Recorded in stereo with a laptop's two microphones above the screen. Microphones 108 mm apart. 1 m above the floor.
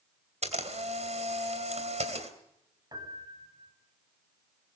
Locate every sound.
0.4 s a camera shutter: 85° right, 3 m
2.9 s a piano: 40° right (ahead or behind), 7 m